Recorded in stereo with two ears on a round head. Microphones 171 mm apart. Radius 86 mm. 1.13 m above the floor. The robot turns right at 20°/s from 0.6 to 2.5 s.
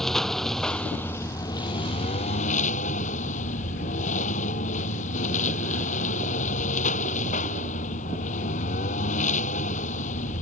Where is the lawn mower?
Straight ahead; by 10.4 s 40° left.